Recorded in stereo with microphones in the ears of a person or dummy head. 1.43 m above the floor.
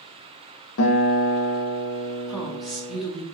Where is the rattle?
I don't hear a rattle.